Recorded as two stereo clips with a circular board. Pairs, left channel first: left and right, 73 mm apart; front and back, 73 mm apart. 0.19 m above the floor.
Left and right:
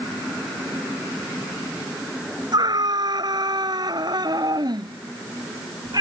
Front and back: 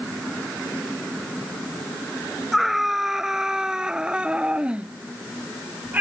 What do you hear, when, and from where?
2.5 s a scream: 90° right; by 6.0 s 115° right